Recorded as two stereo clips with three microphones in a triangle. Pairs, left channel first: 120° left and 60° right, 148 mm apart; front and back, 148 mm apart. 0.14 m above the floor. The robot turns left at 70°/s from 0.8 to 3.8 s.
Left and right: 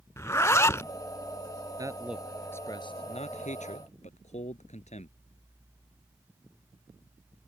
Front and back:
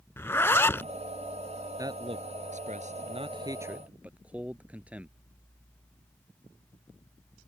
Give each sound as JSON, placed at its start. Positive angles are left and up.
{"t": 0.2, "sound": "a zipper", "azimuth_deg": 60}
{"t": 1.8, "sound": "a man speaking", "azimuth_deg": -120}